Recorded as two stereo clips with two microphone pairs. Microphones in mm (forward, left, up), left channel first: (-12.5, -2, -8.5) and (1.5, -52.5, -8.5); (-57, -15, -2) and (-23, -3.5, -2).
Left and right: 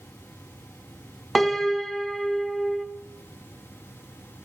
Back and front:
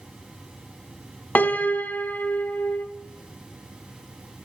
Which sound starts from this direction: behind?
A piano, at 1.4 s.